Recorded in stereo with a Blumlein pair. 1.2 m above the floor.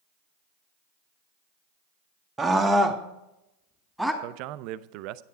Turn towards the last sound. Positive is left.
turn(degrees=-40)